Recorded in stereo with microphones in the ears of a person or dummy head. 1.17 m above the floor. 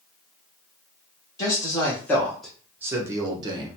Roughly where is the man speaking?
Centre.